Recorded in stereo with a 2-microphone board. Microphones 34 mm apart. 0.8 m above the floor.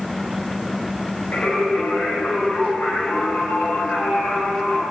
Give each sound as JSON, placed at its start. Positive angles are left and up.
{"t": 1.3, "sound": "singing", "side_deg": 75, "distance_m": 4.5}